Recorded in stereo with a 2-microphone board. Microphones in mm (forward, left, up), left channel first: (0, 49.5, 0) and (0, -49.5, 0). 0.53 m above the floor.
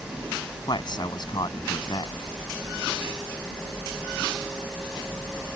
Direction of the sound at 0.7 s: 50° left (ahead or behind).